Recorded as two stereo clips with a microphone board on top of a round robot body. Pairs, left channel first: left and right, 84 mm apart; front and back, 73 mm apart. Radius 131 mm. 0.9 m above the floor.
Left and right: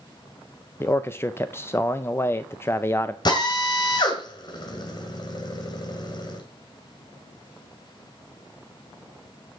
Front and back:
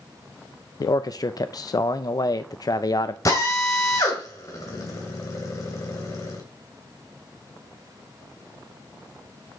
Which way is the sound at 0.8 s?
30° left.